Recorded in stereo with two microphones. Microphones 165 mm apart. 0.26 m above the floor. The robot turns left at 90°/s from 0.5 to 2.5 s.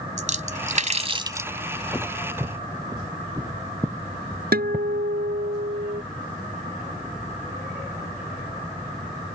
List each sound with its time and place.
0.2 s a splash: 50° right (ahead or behind); by 1.5 s 10° right (ahead or behind)
1.9 s footsteps: 20° left (ahead or behind); by 4.9 s 10° right (ahead or behind)
4.5 s a guitar: 75° right (ahead or behind)